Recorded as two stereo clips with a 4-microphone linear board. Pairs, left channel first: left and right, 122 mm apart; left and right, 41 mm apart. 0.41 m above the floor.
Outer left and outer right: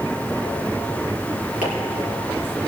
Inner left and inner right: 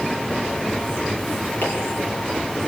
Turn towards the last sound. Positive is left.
turn(degrees=80)